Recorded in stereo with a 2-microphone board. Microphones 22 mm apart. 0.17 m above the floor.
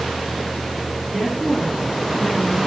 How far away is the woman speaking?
About 1.6 m.